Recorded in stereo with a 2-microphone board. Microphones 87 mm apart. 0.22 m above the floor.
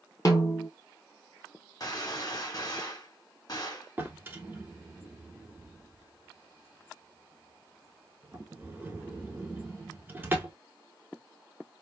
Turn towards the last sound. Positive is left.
turn(degrees=-25)  # may be behind; listen again after turning